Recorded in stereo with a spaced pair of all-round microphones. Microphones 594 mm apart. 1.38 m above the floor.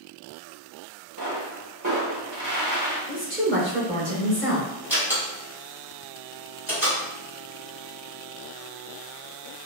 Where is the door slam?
5° right (ahead or behind), 1.7 m.